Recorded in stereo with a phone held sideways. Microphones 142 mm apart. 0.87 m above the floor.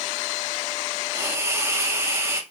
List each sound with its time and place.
1.1 s a hiss: 20° right (ahead or behind), 0.8 m